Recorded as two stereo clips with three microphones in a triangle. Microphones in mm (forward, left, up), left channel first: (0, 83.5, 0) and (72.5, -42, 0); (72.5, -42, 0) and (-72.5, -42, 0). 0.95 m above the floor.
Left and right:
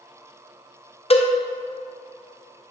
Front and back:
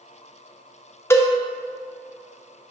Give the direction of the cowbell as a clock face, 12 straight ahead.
10 o'clock.